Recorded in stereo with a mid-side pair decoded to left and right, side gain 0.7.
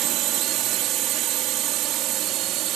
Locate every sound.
0.0 s a drone: 50° right